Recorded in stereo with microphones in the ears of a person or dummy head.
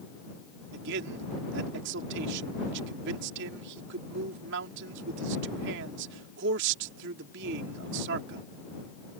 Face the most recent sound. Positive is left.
turn(degrees=-70)  # may be behind; listen again after turning